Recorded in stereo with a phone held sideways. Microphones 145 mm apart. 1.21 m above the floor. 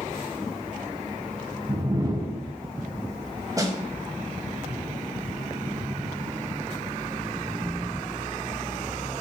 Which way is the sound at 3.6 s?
25° right (ahead or behind).